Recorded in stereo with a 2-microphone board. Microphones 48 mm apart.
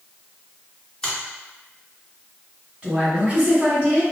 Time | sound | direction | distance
1.0 | a finger snap | 15° left (ahead or behind) | 1.5 m
2.8 | a woman speaking | 30° right (ahead or behind) | 1.6 m